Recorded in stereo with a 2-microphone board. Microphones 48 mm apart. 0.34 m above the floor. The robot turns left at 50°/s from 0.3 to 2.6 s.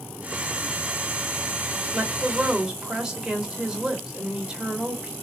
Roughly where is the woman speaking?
Centre.